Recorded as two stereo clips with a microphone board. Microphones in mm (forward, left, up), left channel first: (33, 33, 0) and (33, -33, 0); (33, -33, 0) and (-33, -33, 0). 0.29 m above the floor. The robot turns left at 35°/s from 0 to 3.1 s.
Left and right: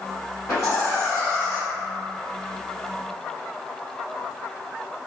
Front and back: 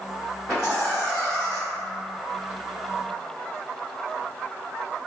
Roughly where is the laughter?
Left.